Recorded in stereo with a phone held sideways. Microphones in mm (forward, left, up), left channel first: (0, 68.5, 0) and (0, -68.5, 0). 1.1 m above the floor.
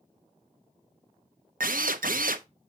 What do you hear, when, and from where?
1.6 s a drill: 75° right (ahead or behind), 0.6 m